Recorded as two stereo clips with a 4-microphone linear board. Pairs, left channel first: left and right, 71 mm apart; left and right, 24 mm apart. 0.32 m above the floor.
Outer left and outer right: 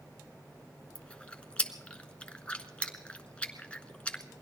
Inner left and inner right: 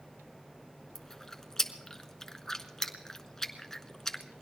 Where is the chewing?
15° left (ahead or behind), 1.1 m.